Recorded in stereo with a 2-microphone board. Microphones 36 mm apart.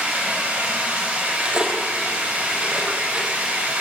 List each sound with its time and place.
0.0 s running water: 35° right (ahead or behind), 5.5 m
1.2 s cutlery clinking: 20° right (ahead or behind), 1.9 m